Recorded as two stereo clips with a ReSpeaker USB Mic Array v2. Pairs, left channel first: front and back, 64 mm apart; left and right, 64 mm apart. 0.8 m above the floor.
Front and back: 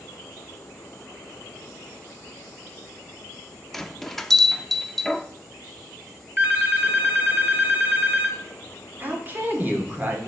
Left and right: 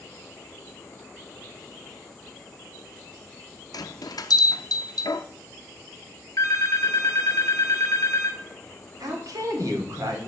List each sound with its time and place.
3.7 s a bell: 85° left, 0.5 m
6.4 s a phone ringing: 120° left, 0.9 m
9.0 s a woman speaking: 115° right, 1.9 m